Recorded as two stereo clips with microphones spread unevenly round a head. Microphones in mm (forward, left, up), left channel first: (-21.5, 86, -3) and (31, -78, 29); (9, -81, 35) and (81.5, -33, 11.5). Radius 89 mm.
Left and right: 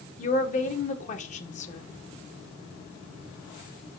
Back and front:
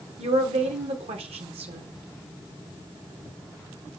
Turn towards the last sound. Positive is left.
turn(degrees=55)